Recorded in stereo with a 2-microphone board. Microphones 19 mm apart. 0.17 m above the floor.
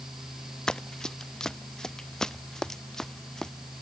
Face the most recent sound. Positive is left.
turn(degrees=20)  # may be behind; listen again after turning